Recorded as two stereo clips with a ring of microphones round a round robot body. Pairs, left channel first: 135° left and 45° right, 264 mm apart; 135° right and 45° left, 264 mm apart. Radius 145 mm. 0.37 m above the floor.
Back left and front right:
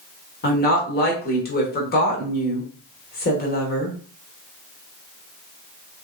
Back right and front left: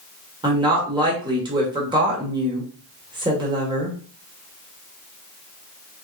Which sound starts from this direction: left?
A woman speaking, at 0.4 s.